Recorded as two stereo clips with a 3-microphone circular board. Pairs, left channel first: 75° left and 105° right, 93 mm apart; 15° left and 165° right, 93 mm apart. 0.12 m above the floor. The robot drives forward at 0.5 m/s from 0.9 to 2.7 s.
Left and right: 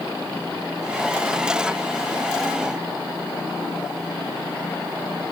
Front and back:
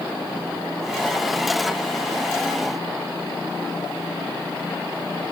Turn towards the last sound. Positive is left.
No sound to turn to.